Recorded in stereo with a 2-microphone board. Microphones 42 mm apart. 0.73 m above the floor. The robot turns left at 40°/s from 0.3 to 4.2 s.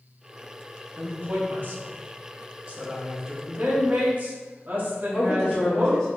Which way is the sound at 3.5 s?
95° right.